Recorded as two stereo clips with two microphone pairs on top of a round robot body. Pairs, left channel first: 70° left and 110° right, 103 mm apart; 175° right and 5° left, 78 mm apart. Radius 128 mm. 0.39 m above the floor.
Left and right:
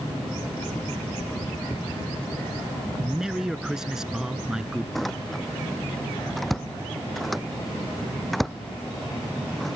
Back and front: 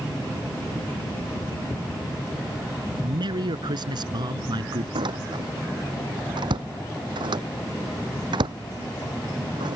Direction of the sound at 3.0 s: 25° right.